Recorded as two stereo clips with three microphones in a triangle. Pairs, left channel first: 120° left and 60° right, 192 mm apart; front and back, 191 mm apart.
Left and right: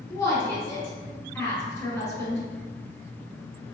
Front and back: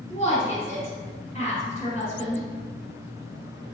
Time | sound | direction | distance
0.1 | a woman speaking | 45° left | 1.8 m